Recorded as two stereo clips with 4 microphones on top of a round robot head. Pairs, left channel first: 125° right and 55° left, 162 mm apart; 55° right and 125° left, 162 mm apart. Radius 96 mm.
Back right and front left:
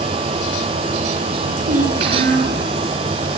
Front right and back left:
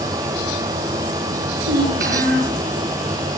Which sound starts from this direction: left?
A child speaking, at 1.6 s.